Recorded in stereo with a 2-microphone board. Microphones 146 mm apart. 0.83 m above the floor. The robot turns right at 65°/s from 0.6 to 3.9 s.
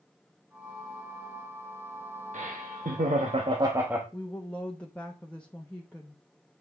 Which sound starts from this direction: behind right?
Laughter, at 2.3 s.